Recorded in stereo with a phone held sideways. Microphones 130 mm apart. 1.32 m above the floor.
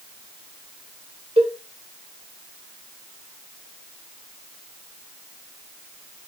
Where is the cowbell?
45° right (ahead or behind), 0.7 m.